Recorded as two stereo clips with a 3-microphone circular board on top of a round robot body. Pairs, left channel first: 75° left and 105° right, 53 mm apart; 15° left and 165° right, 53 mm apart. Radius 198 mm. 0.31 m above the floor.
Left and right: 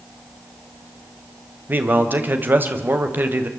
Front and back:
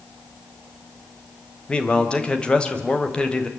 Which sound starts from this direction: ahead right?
A man speaking, at 1.7 s.